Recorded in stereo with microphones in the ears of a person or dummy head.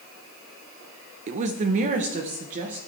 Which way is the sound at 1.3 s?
40° right (ahead or behind).